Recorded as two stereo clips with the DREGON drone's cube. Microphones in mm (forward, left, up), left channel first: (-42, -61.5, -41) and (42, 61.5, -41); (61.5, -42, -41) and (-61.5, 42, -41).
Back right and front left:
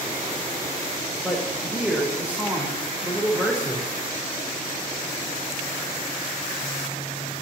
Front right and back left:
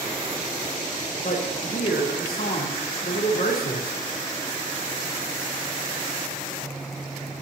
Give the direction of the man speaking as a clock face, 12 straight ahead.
1 o'clock.